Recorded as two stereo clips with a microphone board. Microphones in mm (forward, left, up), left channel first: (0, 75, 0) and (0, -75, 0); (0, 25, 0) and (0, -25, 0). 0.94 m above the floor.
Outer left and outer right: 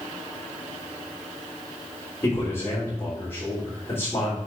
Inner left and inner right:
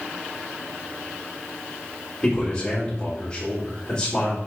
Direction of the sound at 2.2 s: 15° left (ahead or behind).